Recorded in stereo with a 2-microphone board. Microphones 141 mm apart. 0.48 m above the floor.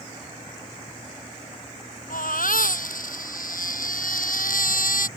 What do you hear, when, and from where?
2.1 s a baby crying: 70° left (ahead or behind)